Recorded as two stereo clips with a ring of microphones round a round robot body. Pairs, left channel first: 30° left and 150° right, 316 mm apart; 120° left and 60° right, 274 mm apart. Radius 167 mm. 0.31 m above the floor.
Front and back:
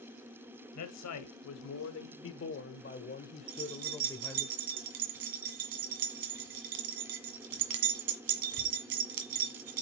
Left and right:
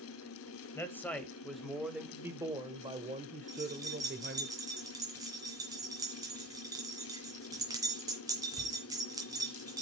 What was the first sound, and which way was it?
A man speaking, 40° left.